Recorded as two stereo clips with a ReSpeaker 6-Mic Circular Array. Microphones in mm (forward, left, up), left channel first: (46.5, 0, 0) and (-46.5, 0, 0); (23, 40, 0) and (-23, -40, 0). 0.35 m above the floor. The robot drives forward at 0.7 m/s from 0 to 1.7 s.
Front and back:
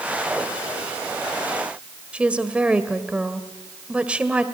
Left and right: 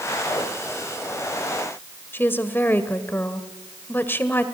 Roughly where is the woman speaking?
Left.